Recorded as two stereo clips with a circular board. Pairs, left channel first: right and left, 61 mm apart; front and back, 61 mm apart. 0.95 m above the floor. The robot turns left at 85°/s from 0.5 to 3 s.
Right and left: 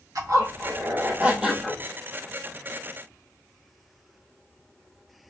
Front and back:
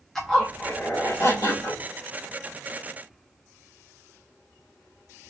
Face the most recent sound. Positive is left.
turn(degrees=-125)